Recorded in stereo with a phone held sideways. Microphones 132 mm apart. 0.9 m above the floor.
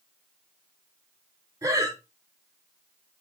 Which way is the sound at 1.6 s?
25° right (ahead or behind).